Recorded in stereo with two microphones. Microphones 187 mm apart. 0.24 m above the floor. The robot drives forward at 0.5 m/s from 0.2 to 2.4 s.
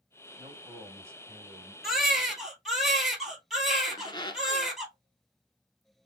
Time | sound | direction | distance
0.4 | a man speaking | 15° right (ahead or behind) | 1.1 m
1.8 | a baby crying | centre (ahead or behind) | 1.3 m
3.9 | a squeak | 25° left (ahead or behind) | 0.7 m